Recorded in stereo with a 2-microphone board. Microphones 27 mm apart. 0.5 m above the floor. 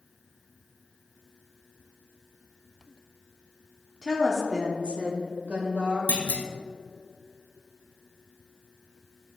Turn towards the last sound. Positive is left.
turn(degrees=80)